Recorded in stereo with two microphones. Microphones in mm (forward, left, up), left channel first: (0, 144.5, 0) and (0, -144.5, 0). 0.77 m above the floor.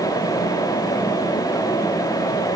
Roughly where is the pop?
No pop in this recording.